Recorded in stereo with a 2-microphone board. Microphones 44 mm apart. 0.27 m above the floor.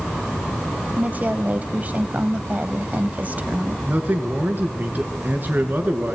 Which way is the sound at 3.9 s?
40° right (ahead or behind).